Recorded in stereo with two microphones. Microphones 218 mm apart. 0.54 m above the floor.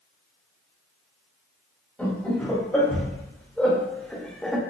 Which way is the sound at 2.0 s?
5° left (ahead or behind).